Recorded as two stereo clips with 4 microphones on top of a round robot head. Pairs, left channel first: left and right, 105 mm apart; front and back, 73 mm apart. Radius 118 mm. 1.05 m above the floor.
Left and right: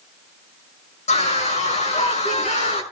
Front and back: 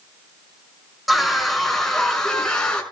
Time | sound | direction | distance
1.1 | a scream | 95° left | 6 m